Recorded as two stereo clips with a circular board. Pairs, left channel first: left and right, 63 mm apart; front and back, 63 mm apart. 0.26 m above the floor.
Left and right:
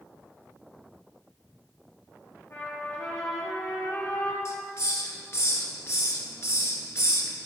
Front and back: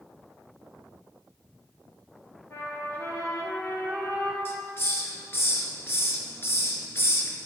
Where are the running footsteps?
I don't hear running footsteps.